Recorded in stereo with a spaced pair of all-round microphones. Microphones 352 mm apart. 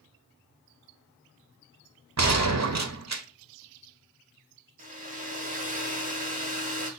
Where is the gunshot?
50° right (ahead or behind), 0.5 m.